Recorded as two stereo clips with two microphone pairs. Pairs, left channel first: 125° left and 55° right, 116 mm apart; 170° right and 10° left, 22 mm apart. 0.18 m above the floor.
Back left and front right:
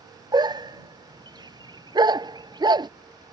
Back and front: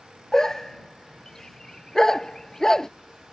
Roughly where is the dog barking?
Right.